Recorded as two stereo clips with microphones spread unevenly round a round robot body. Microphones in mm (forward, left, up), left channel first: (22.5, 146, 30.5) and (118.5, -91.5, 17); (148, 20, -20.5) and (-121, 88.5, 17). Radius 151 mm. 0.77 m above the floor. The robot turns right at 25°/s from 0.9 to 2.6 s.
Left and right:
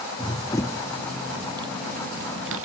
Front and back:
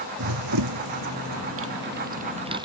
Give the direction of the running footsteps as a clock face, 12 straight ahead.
6 o'clock.